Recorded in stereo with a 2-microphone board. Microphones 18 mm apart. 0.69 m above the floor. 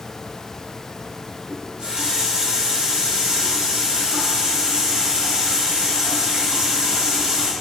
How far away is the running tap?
About 1.2 m.